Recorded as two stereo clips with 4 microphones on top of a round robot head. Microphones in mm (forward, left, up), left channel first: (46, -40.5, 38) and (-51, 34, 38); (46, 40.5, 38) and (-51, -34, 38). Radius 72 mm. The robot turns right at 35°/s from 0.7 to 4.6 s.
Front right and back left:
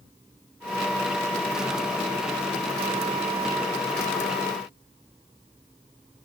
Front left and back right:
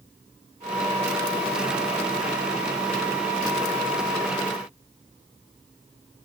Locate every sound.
Only background noise.